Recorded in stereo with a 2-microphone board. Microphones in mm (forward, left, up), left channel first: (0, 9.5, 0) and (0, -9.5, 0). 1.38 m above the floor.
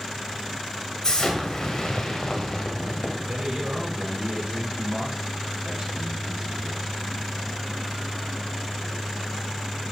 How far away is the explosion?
About 1.8 m.